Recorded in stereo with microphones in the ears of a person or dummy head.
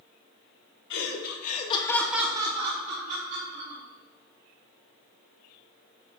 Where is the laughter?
70° left (ahead or behind), 1.9 m; by 3.8 s 55° right (ahead or behind), 3 m.